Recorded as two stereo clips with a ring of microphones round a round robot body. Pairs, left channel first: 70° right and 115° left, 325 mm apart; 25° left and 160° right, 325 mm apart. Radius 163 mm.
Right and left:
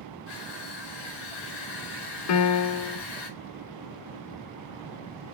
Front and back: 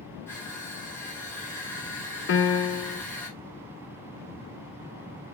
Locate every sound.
0.3 s crushing: 60° right, 3.5 m
2.3 s a piano: 30° right, 0.6 m